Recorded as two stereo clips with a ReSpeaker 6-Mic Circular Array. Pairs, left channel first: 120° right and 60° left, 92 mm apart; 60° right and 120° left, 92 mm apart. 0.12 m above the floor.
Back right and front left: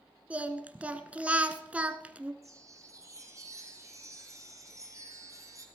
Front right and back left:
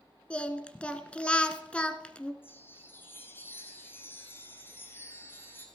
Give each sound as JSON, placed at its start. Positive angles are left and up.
{"t": 0.3, "sound": "singing", "azimuth_deg": 5, "distance_m": 1.0}
{"t": 2.4, "sound": "a chime", "azimuth_deg": 5, "distance_m": 2.5}